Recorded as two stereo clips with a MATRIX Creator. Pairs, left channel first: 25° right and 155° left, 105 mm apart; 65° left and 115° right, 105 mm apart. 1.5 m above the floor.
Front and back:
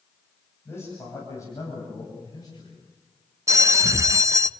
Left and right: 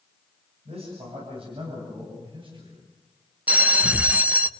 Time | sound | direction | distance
0.7 | a man speaking | 90° right | 9.5 m
3.5 | a bell | 175° right | 0.7 m